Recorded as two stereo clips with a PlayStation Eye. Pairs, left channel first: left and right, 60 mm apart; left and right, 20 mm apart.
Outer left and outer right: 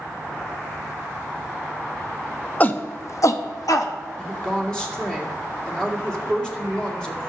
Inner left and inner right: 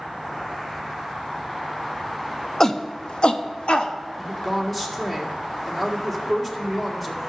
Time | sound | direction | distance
2.6 | a shout | 25° left (ahead or behind) | 0.9 m
4.2 | a woman speaking | 10° left (ahead or behind) | 2 m